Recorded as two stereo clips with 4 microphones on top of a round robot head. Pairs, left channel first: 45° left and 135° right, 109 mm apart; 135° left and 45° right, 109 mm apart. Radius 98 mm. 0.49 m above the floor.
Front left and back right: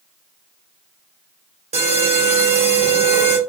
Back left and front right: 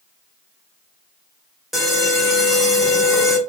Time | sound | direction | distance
1.7 | an alarm | 135° right | 1.9 m